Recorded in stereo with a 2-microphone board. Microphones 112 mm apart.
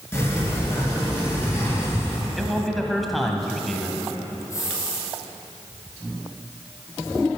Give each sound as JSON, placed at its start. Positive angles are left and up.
{"t": 0.1, "sound": "a sliding door", "side_deg": 20, "distance_m": 3.5}
{"t": 2.4, "sound": "a man speaking", "side_deg": 0, "distance_m": 1.3}
{"t": 4.5, "sound": "a hiss", "side_deg": 30, "distance_m": 3.5}